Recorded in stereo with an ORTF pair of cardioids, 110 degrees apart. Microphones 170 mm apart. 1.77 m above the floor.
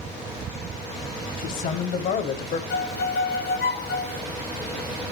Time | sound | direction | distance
1.4 | a man speaking | 60° left | 3 m
2.7 | a violin | 70° left | 1.3 m